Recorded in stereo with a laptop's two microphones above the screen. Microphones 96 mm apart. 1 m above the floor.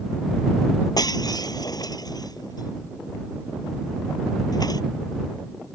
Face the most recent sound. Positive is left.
turn(degrees=40)  # may be behind; listen again after turning